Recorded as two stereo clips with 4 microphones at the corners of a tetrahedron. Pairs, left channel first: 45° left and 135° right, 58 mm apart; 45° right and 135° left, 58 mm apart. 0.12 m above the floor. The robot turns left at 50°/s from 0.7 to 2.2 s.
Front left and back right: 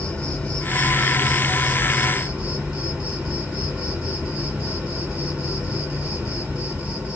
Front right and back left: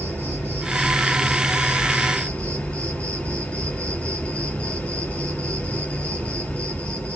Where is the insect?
10° right, 2.5 m; by 7.2 s 85° right, 2.5 m.